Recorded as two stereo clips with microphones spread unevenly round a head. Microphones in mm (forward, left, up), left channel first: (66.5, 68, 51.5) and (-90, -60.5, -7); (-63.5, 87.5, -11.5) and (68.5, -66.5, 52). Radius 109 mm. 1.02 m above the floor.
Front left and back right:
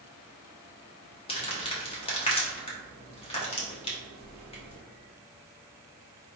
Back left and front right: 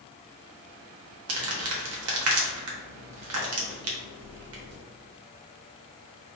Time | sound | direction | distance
1.3 | crumpling | 30° right | 1.2 m